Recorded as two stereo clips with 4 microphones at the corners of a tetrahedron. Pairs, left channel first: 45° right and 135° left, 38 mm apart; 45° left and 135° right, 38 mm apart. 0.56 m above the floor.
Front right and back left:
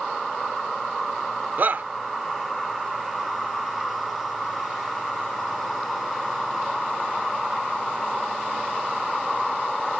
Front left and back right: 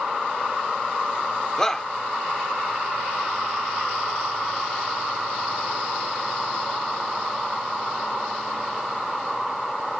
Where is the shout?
115° left.